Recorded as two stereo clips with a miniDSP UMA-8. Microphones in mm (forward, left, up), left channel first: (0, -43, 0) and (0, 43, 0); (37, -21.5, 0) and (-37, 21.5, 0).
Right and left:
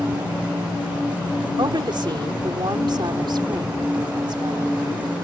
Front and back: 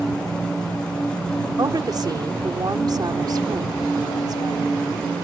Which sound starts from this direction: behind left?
A woman speaking, at 1.6 s.